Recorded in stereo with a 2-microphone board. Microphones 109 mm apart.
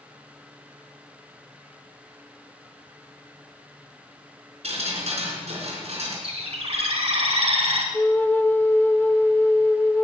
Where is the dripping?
80° right, 4 m.